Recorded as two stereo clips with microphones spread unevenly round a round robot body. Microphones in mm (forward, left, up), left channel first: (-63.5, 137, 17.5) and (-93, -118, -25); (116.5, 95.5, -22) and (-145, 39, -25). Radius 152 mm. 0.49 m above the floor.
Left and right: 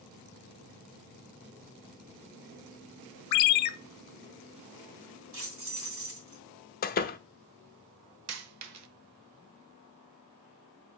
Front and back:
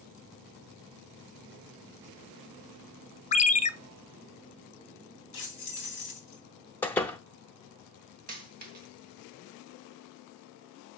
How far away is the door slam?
About 0.6 m.